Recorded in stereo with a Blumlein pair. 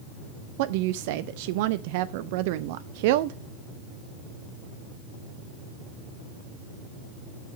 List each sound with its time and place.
0.6 s a woman speaking: 50° right, 0.5 m